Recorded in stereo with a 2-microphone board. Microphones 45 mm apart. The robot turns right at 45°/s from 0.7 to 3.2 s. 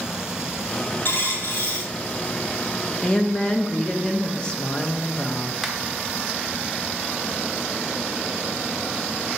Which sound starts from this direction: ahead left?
A dropped coin, at 1.1 s.